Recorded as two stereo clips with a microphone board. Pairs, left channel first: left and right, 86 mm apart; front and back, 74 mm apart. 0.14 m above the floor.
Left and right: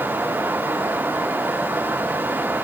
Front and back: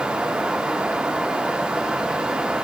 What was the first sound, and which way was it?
Only background noise.